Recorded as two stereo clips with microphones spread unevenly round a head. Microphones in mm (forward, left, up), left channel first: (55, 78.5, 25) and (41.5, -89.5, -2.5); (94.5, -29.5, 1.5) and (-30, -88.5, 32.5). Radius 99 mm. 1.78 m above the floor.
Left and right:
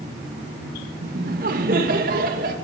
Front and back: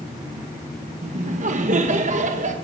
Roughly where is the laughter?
Behind right.